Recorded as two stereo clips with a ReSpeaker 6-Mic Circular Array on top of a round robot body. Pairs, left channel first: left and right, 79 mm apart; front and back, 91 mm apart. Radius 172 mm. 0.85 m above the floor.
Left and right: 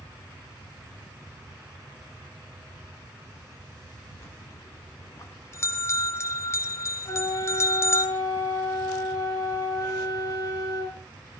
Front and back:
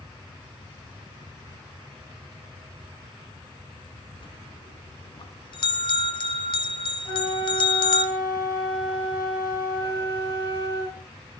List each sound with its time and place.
4.2 s a bell: 35° left, 0.8 m
7.0 s a flute: 45° left, 7 m